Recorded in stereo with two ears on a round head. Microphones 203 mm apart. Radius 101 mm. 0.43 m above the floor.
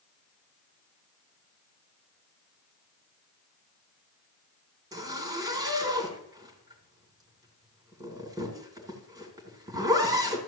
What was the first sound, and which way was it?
A zipper, 15° right (ahead or behind).